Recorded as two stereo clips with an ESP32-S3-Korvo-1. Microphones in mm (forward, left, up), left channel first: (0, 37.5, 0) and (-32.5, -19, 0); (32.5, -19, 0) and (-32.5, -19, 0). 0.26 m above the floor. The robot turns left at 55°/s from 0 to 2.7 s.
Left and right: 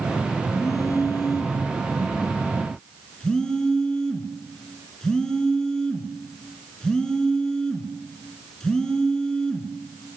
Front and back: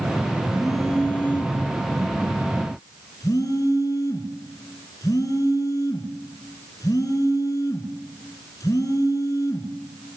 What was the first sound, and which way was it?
A phone buzzing, 100° left.